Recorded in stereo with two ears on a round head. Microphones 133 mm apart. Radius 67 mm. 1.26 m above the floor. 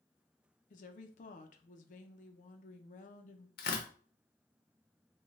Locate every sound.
0.7 s a woman speaking: 60° left (ahead or behind), 0.6 m
3.6 s tearing paper: 80° left, 0.8 m